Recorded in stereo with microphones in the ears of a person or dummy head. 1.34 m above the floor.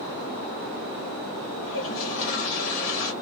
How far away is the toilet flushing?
About 1.3 m.